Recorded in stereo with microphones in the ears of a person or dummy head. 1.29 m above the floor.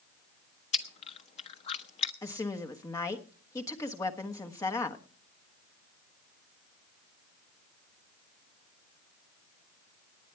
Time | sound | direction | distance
0.7 | chewing | 40° left (ahead or behind) | 0.8 m
2.2 | a woman speaking | 15° left (ahead or behind) | 1.2 m